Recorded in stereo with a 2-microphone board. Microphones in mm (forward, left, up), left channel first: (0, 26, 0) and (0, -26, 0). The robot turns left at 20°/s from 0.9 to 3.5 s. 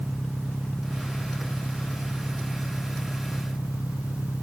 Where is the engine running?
145° left; by 4.4 s 95° left.